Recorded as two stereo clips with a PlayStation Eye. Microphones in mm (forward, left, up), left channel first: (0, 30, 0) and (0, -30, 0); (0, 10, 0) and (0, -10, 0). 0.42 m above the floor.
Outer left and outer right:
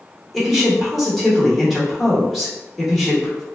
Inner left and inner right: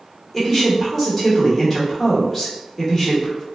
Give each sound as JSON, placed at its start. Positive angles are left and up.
{"t": 0.3, "sound": "a woman speaking", "side_deg": 0, "distance_m": 1.0}